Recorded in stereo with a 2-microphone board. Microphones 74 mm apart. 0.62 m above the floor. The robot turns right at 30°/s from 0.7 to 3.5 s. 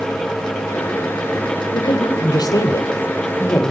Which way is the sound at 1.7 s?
90° left.